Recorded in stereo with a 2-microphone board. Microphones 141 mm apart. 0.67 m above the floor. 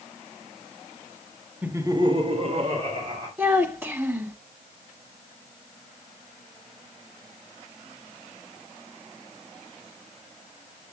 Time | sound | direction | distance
1.6 | laughter | 10° right (ahead or behind) | 1.1 m
3.4 | a child speaking | 15° right (ahead or behind) | 1.2 m